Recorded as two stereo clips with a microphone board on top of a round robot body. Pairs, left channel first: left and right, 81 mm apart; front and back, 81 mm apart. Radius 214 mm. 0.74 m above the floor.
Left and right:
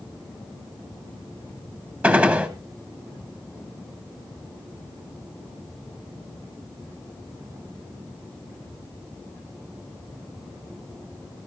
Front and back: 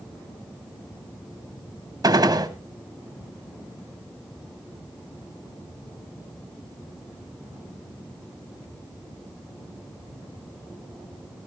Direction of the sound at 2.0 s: 155° right.